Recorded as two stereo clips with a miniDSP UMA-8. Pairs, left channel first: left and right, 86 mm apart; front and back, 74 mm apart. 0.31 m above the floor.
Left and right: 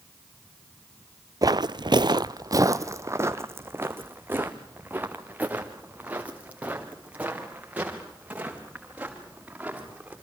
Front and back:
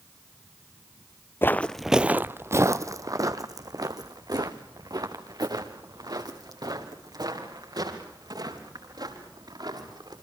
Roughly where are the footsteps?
Ahead right.